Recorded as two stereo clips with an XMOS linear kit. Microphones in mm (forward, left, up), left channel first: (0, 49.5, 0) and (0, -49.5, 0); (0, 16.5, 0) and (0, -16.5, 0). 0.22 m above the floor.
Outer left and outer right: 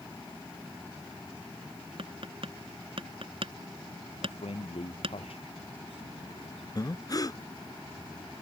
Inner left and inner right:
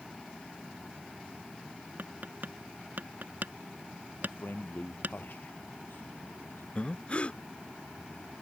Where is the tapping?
65° right (ahead or behind).